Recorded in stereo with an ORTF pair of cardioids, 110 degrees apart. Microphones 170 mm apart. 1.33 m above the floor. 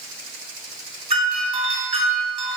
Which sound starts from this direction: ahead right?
A doorbell, at 1.1 s.